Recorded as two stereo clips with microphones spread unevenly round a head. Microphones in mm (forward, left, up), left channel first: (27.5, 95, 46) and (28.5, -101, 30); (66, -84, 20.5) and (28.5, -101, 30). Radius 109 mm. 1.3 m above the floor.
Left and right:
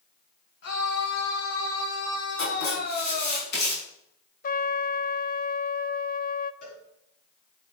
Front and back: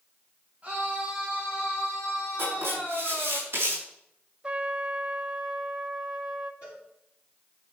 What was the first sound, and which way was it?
A scream, 125° left.